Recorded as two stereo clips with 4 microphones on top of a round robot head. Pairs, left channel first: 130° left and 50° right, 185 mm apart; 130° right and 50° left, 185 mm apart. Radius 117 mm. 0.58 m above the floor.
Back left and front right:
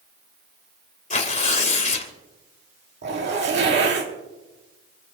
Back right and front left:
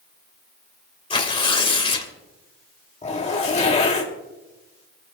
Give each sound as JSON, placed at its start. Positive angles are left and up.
{"t": 1.1, "sound": "tearing paper", "azimuth_deg": 175, "distance_m": 2.5}
{"t": 3.0, "sound": "a zipper", "azimuth_deg": -75, "distance_m": 2.5}